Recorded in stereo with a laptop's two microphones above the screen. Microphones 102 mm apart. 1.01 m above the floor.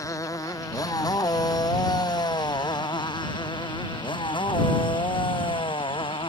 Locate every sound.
0.0 s a motorcycle: 35° left (ahead or behind); by 6.3 s 60° left (ahead or behind)